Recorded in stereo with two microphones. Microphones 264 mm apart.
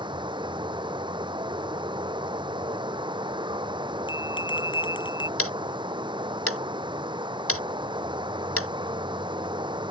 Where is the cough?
No cough in this recording.